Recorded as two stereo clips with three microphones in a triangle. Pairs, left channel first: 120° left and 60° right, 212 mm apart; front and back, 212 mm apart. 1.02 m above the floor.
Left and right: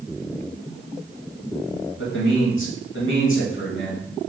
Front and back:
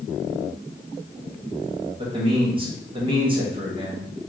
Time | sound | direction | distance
2.0 | a man speaking | 115° left | 1.8 m